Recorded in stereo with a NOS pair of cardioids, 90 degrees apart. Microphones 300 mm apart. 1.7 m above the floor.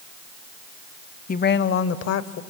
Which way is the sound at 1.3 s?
30° left.